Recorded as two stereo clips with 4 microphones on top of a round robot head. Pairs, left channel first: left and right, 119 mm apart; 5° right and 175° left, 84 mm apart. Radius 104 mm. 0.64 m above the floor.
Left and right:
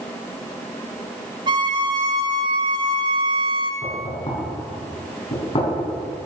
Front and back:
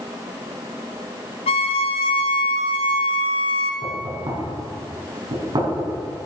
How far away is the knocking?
About 5 m.